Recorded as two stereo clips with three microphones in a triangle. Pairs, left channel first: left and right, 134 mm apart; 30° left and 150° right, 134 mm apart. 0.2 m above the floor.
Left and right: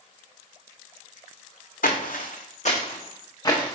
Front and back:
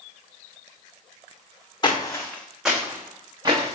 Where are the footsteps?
85° left, 0.8 m; by 3.8 s 160° left, 1.2 m.